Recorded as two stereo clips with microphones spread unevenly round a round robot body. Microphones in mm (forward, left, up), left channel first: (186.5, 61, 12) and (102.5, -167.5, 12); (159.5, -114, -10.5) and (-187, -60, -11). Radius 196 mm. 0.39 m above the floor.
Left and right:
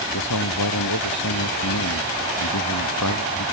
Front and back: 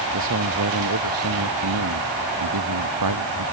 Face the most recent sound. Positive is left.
turn(degrees=125)